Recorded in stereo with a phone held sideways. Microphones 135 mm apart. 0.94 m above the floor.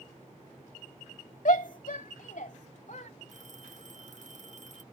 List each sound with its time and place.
1.4 s a shout: 75° left (ahead or behind); by 3.1 s 60° left (ahead or behind)
3.3 s a phone ringing: 65° right (ahead or behind)